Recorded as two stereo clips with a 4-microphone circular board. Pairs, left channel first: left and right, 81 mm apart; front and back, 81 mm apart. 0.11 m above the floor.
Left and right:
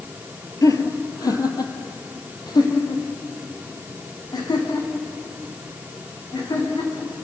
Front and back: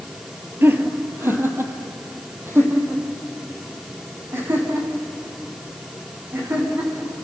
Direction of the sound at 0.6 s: 125° left.